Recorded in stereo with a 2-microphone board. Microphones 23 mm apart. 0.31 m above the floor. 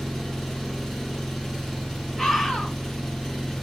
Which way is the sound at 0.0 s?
15° left (ahead or behind).